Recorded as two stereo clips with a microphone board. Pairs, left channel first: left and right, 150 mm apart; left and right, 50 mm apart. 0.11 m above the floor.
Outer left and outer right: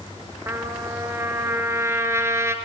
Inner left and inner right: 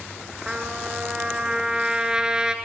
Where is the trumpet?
15° right (ahead or behind), 1.5 m.